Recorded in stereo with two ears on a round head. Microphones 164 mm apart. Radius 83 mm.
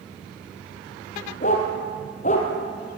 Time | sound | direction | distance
1.4 | a dog barking | 40° left (ahead or behind) | 3 m